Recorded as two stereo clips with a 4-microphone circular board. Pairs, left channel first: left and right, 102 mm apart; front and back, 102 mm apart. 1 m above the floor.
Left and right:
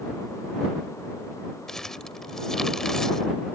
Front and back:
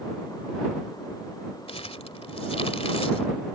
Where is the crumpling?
5° left.